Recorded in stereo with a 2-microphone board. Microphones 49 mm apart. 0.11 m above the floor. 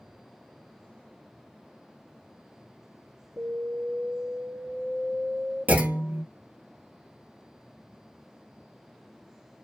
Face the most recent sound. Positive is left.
turn(degrees=-35)  # may be behind; listen again after turning